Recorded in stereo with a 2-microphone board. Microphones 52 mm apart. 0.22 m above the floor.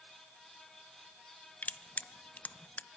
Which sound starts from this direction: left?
Crushing, at 1.6 s.